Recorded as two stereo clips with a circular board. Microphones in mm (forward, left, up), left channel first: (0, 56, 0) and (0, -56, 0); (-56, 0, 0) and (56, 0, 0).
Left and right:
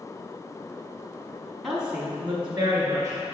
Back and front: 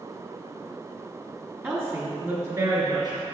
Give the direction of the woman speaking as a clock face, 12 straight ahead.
12 o'clock.